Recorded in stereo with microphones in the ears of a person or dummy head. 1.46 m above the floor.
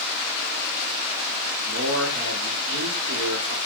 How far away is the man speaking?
About 0.9 m.